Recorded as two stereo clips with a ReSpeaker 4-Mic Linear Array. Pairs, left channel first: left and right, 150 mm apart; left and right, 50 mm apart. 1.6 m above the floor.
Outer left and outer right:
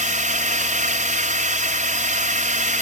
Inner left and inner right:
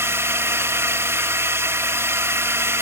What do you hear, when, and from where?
0.0 s a drone: 60° right (ahead or behind)